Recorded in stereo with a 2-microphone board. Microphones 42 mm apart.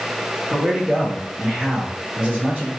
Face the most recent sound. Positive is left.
turn(degrees=-25)  # may be behind; listen again after turning